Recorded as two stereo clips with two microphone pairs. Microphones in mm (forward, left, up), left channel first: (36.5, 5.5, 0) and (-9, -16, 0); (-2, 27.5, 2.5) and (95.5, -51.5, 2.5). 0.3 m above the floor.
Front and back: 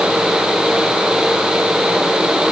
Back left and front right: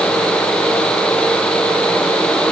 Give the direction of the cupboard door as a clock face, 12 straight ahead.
I don't hear a cupboard door.